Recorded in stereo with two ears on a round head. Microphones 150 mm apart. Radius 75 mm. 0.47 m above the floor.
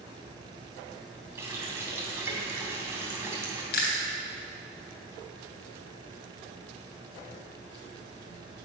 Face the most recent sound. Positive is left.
turn(degrees=70)  # may be behind; listen again after turning